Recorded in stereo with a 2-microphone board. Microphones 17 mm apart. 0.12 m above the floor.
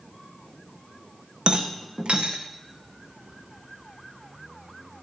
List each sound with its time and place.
1.5 s a rattle: 80° right, 2.5 m